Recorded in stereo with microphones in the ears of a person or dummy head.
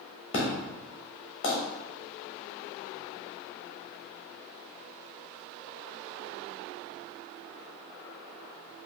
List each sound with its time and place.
0.3 s an explosion: 25° left (ahead or behind), 1.0 m